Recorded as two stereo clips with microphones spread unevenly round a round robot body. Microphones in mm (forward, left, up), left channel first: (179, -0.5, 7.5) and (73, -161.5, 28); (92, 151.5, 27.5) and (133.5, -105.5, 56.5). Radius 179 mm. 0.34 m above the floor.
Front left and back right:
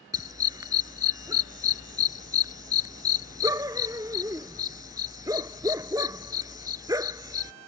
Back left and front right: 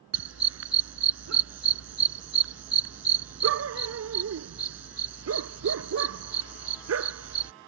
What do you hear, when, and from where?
0.1 s a dog barking: 50° right